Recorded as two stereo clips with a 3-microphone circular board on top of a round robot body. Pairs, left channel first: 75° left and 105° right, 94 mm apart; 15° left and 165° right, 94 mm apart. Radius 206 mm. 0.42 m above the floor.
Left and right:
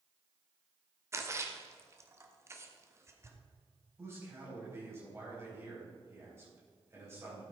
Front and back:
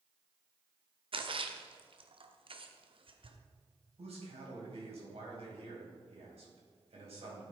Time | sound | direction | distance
1.1 | a splash | 160° right | 1.3 m
4.0 | a man speaking | 170° right | 4 m